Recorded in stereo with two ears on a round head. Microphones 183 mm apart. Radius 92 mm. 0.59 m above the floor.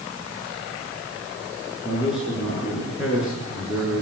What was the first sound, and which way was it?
A man speaking, 5° right (ahead or behind).